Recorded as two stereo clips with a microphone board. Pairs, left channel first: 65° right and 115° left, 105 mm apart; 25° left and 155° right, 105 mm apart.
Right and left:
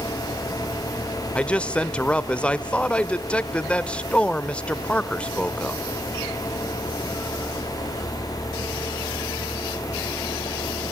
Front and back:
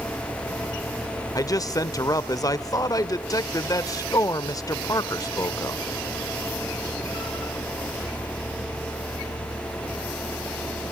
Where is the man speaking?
5° left, 0.9 m.